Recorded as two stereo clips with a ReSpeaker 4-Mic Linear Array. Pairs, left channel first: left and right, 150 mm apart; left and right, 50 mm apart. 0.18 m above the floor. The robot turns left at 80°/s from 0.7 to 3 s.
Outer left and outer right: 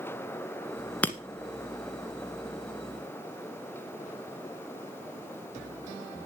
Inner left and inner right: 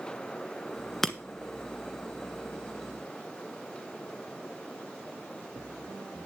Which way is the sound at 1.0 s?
10° left (ahead or behind).